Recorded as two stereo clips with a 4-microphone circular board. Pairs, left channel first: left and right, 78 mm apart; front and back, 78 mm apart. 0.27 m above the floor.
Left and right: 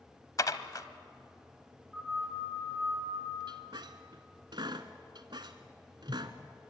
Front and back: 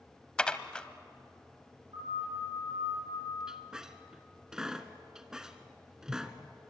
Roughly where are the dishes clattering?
Left.